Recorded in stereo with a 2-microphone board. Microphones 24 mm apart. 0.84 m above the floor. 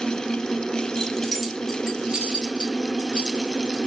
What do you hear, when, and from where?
1.0 s keys jangling: 25° left (ahead or behind), 0.8 m; by 3.8 s 75° right (ahead or behind), 1.8 m